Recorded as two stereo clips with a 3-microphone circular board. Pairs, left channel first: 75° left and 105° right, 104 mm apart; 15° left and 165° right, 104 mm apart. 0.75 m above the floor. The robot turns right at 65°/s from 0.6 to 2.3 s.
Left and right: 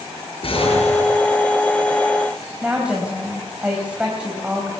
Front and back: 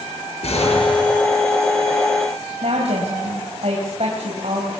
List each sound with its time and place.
0.4 s an explosion: 40° left, 6.5 m; by 1.2 s 80° left, 6.5 m
2.6 s a woman speaking: 175° left, 4 m